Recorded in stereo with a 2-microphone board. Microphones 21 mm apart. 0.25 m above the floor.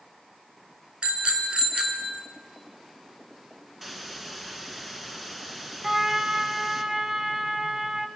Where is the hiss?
10° right (ahead or behind), 1.9 m.